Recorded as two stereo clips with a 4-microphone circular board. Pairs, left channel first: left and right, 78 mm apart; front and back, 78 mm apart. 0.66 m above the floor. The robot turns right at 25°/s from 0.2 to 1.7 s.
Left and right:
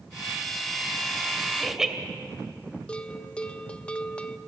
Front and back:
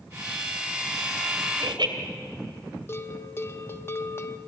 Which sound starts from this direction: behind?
Laughter, at 1.6 s.